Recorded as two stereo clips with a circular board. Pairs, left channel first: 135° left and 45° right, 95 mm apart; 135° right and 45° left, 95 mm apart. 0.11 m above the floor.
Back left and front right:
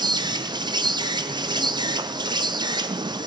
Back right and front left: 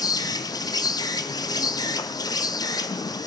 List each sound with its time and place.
0.0 s an insect: 85° right, 0.7 m